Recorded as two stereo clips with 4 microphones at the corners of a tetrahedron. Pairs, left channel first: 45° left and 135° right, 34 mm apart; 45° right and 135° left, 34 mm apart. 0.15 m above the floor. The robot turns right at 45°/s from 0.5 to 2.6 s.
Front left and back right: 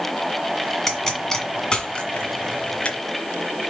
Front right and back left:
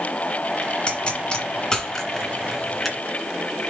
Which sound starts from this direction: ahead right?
A pop, at 0.9 s.